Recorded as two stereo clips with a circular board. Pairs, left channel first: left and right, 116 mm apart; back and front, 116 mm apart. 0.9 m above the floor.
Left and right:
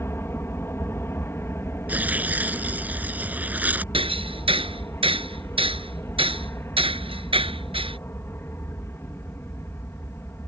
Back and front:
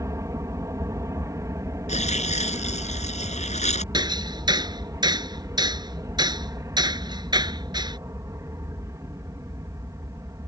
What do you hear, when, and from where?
0.0 s an aircraft: 40° left
1.9 s tearing paper: 165° right
3.9 s hammering: 50° right